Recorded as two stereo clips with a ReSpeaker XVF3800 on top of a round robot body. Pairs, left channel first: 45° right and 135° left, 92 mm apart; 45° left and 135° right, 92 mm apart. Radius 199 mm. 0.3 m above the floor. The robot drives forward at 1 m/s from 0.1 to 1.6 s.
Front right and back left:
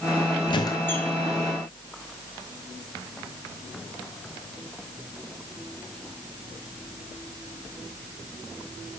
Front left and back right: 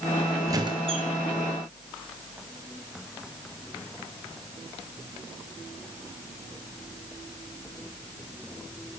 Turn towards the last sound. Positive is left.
turn(degrees=-145)